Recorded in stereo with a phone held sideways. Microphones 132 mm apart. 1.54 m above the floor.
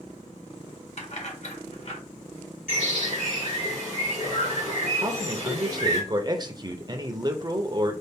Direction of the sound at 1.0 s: 55° left (ahead or behind).